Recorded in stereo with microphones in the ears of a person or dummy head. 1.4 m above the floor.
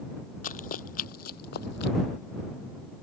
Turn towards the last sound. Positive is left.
turn(degrees=60)  # may be behind; listen again after turning